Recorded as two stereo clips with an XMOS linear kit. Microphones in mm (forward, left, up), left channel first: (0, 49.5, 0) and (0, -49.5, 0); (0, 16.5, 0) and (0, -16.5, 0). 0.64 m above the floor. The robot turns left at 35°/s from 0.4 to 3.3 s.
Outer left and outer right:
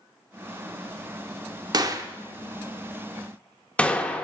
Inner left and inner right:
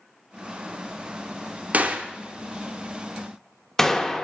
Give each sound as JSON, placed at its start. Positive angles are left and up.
{"t": 1.7, "sound": "a gunshot", "side_deg": -40, "distance_m": 0.5}